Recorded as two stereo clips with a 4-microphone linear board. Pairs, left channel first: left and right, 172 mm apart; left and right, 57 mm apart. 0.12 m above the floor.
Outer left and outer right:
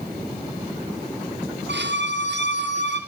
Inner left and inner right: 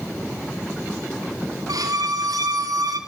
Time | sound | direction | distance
1.7 | a violin | 90° right | 5 m